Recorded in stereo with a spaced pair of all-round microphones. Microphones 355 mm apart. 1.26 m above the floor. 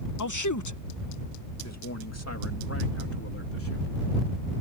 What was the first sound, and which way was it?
A man speaking, 65° left (ahead or behind).